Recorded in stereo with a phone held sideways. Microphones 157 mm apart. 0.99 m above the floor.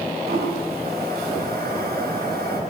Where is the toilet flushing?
85° right, 5 m.